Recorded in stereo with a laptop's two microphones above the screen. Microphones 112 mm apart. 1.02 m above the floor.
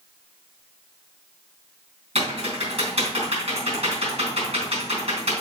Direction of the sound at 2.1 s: 60° right (ahead or behind).